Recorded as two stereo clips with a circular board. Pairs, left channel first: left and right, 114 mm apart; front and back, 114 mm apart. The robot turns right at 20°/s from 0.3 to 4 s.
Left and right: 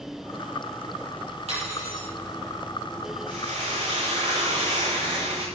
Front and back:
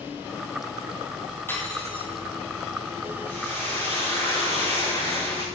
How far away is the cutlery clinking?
About 6.5 m.